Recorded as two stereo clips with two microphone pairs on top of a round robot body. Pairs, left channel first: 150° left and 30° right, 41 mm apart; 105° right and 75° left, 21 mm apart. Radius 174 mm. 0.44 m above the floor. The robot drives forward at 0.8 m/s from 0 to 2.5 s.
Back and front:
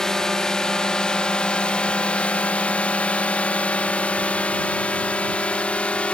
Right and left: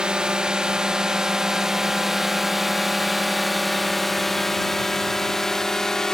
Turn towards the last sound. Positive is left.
turn(degrees=-150)